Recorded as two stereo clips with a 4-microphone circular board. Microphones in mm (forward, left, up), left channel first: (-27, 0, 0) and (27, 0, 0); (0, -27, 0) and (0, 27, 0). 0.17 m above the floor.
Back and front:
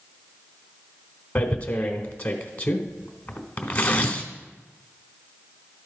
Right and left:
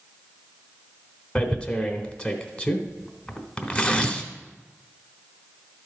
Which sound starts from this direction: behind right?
Tearing paper, at 1.4 s.